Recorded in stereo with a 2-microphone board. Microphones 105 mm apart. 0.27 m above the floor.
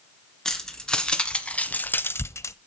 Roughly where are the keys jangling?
Centre.